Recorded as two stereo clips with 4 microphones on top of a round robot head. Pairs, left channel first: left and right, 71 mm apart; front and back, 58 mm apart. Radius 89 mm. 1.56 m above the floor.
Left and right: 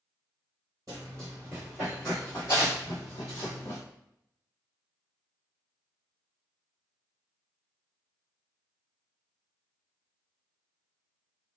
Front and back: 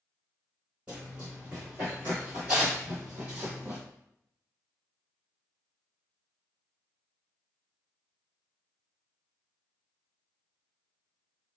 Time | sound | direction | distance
0.9 | running footsteps | 105° right | 1.7 m